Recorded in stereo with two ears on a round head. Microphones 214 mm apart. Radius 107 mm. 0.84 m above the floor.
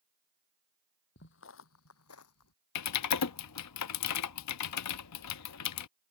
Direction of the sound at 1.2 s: 50° left (ahead or behind).